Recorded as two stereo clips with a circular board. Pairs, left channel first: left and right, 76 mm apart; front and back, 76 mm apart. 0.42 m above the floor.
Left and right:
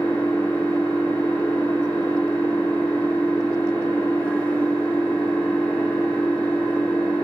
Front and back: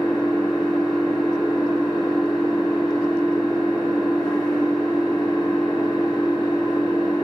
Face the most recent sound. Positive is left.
turn(degrees=20)